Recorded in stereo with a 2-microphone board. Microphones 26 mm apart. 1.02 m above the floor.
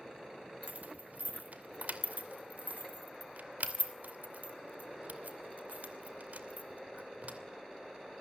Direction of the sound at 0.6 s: 70° right (ahead or behind).